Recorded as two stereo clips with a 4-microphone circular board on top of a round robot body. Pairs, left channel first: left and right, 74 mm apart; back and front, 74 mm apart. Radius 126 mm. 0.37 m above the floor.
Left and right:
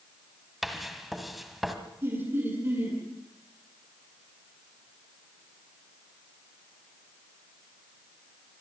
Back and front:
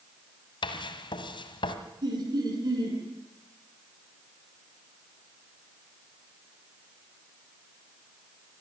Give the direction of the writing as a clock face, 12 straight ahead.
6 o'clock.